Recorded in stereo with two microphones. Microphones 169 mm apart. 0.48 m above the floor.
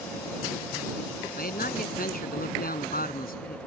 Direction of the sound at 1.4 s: 60° left (ahead or behind).